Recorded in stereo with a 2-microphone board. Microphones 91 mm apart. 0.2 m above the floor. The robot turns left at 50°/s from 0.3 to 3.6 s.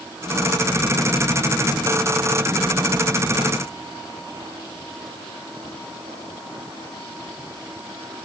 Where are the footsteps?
No footsteps in this recording.